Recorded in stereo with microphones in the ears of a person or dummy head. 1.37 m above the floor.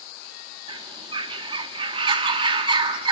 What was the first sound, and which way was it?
A bird, 25° right (ahead or behind).